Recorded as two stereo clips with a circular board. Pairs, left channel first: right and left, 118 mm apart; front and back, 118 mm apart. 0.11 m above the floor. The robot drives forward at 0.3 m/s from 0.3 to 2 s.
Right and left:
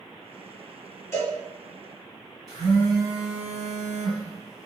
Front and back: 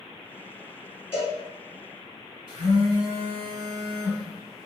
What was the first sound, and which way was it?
A cowbell, 45° right.